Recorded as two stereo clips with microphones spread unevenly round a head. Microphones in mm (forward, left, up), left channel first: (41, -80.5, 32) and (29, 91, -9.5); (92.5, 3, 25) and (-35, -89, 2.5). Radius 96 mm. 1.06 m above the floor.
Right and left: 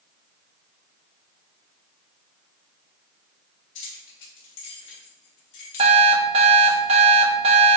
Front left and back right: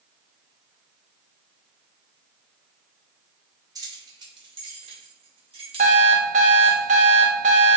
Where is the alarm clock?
160° left, 0.6 m.